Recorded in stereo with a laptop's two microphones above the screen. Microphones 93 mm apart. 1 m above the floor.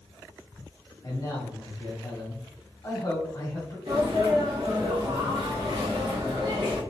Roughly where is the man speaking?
Left.